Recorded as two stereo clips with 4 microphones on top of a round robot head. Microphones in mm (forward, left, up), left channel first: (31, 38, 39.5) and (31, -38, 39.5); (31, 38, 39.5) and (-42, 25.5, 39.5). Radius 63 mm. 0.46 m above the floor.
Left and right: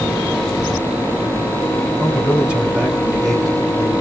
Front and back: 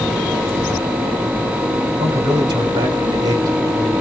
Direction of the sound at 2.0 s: 160° right.